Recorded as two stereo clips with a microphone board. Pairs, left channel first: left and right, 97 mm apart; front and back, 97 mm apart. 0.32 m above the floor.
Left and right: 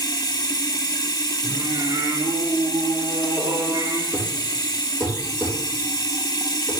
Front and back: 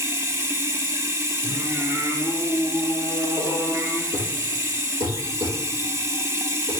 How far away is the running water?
About 0.9 m.